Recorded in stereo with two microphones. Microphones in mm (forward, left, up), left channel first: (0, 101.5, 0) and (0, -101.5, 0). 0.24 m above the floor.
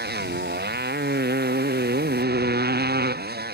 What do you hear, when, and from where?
0.0 s a motorcycle: 55° right (ahead or behind); by 3.5 s 50° right (ahead or behind)